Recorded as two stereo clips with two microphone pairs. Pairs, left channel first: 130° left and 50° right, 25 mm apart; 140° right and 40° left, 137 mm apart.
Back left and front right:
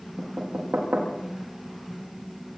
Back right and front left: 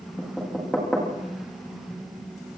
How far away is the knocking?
About 8 m.